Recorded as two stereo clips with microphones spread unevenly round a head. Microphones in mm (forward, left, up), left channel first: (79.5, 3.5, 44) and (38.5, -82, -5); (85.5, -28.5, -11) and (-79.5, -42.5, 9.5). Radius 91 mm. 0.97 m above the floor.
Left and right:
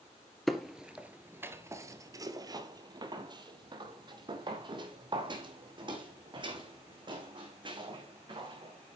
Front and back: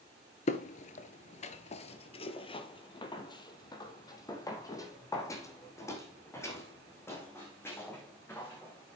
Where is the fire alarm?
No fire alarm in this recording.